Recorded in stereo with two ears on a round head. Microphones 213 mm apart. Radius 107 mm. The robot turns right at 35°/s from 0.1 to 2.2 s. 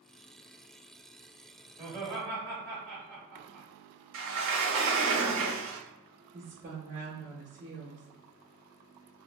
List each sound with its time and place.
1.8 s laughter: 35° right (ahead or behind), 1.4 m; by 3.7 s 45° right (ahead or behind), 1.4 m
4.1 s a sliding door: 75° right (ahead or behind), 0.9 m
6.3 s a woman speaking: 35° right (ahead or behind), 1.0 m